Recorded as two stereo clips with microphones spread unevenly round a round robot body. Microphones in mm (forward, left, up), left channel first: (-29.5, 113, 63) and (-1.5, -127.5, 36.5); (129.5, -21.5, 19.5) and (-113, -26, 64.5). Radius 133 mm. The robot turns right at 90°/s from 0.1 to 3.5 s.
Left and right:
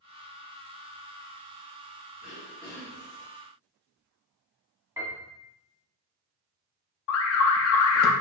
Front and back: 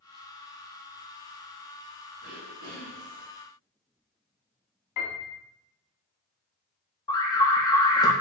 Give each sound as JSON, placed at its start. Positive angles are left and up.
{"t": 2.2, "sound": "throat clearing", "azimuth_deg": 130, "distance_m": 1.4}
{"t": 5.0, "sound": "a piano", "azimuth_deg": 0, "distance_m": 1.3}
{"t": 7.1, "sound": "an alarm", "azimuth_deg": 70, "distance_m": 0.5}